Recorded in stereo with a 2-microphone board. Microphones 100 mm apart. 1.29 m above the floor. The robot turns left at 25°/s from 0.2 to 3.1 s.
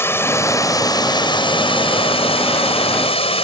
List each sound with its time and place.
0.0 s running water: 155° left; by 3.5 s 80° left